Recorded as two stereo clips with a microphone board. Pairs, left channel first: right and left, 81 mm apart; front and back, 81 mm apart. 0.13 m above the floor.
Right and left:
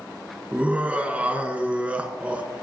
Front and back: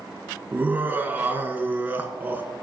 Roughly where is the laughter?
Behind left.